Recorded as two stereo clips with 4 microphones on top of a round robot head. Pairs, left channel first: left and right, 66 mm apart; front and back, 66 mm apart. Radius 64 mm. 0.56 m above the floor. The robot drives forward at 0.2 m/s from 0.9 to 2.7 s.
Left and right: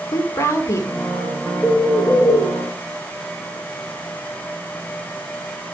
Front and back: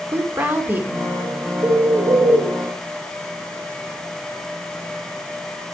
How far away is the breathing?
I don't hear breathing.